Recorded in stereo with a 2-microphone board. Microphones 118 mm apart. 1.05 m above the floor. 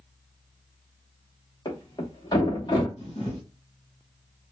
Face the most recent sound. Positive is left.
turn(degrees=55)  # may be behind; listen again after turning